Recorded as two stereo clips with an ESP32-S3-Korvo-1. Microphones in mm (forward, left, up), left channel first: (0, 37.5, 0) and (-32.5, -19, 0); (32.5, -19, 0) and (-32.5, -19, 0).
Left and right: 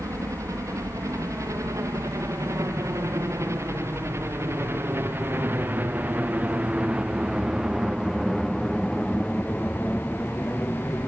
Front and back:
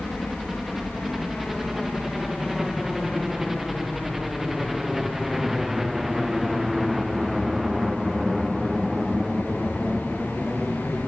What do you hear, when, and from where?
0.0 s a helicopter: 95° right; by 11.1 s 90° left